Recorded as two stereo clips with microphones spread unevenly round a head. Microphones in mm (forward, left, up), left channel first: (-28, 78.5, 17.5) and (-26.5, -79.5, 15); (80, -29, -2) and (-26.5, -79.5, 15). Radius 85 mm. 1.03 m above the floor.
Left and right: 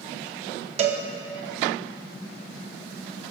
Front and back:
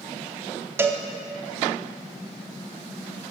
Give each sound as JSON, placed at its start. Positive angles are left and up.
{"t": 0.8, "sound": "a cowbell", "azimuth_deg": -110, "distance_m": 0.6}